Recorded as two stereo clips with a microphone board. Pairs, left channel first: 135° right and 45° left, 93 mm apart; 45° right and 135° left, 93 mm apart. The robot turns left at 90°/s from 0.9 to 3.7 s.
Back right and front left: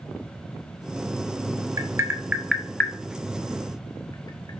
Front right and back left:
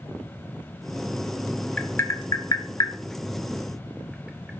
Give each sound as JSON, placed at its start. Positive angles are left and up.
{"t": 1.8, "sound": "tapping", "azimuth_deg": 25, "distance_m": 0.9}